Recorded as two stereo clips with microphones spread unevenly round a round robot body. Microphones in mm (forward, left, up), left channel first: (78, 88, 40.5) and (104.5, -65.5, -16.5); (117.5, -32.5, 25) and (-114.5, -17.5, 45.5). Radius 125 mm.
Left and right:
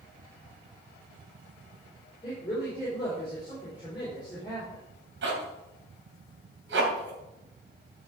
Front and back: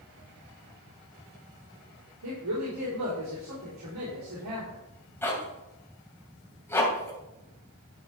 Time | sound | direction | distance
2.2 | a woman speaking | straight behind | 3.5 m
5.2 | a zipper | 85° right | 2.5 m